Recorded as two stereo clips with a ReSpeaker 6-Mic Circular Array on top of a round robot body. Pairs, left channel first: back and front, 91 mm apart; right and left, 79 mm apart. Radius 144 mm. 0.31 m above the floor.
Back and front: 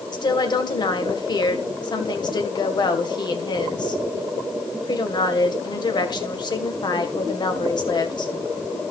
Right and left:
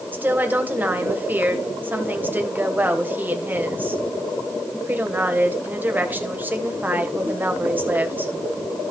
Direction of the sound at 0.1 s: 155° left.